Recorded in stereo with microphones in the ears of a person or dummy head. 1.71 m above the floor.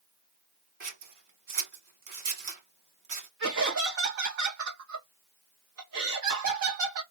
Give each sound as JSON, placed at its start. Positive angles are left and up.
{"t": 0.8, "sound": "scissors", "side_deg": -40, "distance_m": 1.3}
{"t": 3.4, "sound": "laughter", "side_deg": -70, "distance_m": 1.1}